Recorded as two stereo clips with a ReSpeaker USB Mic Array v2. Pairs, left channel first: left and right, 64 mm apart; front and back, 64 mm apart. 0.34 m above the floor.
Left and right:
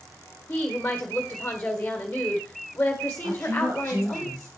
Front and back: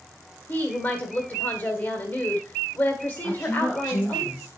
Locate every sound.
0.5 s a woman speaking: 35° left, 1.5 m
3.2 s a woman speaking: 70° right, 4.5 m